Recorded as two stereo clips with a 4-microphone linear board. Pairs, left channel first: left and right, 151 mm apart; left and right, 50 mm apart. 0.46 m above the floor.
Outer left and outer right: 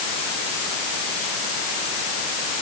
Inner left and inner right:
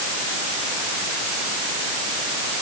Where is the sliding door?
No sliding door in this recording.